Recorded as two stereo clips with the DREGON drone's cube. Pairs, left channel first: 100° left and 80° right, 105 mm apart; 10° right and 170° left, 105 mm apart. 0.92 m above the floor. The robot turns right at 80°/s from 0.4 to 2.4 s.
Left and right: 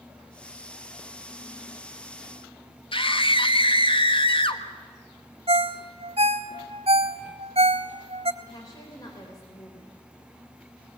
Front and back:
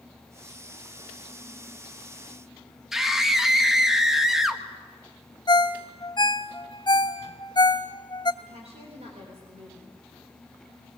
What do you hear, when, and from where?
2.9 s a scream: 85° left, 1.4 m
5.5 s a ringtone: 55° right, 1.0 m
8.4 s a woman speaking: 155° left, 3.5 m